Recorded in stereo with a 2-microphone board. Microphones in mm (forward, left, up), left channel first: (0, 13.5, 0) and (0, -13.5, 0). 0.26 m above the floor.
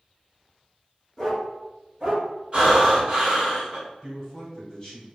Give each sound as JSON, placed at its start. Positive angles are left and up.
{"t": 1.2, "sound": "a dog barking", "side_deg": 10, "distance_m": 1.4}
{"t": 2.5, "sound": "breathing", "side_deg": -35, "distance_m": 1.5}
{"t": 4.0, "sound": "a man speaking", "side_deg": 25, "distance_m": 1.1}